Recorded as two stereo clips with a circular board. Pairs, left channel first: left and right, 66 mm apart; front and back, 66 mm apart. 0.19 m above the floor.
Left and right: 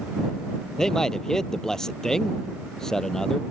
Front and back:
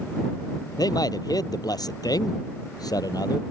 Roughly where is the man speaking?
Ahead.